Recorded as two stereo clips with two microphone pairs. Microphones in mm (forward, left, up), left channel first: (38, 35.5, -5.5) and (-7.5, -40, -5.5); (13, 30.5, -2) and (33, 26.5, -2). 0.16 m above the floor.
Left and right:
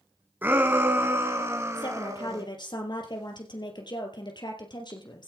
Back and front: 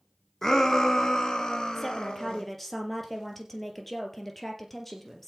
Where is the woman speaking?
85° left, 3.5 m.